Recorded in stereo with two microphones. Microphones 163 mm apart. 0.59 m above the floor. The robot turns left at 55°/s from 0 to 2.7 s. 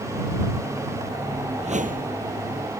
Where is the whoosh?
40° right; by 2.2 s 75° right.